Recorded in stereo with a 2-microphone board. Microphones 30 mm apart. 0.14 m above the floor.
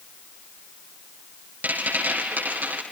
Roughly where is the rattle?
Right.